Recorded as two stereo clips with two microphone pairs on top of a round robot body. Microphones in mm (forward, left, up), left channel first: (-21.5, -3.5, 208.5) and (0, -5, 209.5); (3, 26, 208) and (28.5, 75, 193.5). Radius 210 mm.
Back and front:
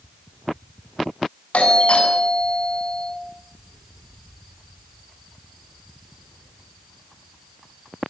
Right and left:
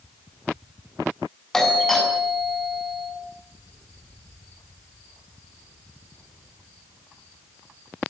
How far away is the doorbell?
About 8 m.